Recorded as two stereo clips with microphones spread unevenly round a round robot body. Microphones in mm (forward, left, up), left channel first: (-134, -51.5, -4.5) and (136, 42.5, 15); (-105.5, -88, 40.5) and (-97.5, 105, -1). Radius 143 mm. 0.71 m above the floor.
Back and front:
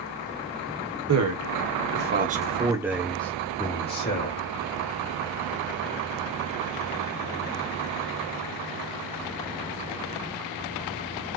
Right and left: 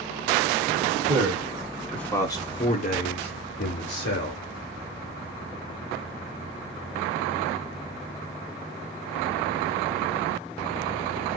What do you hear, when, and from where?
1.1 s a man speaking: 35° left, 1.5 m; by 4.4 s 105° right, 1.8 m